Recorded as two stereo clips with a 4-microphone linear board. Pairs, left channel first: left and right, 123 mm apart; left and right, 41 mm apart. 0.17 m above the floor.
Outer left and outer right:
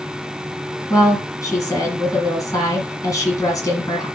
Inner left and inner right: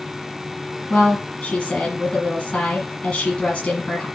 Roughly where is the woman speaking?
Left.